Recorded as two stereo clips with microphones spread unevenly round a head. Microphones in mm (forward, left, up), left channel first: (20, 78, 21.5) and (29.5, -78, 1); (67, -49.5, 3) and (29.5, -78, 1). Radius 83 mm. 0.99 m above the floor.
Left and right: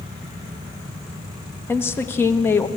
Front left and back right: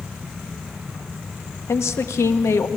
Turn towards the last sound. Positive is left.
turn(degrees=15)